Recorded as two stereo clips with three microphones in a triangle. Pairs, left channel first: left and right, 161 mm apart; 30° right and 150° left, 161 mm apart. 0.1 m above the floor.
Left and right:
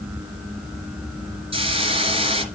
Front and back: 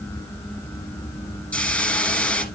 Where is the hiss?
105° right, 1.5 m.